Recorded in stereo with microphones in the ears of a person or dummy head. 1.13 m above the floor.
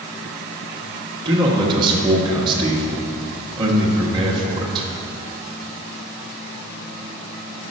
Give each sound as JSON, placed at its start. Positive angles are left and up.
{"t": 1.2, "sound": "a man speaking", "side_deg": -30, "distance_m": 1.3}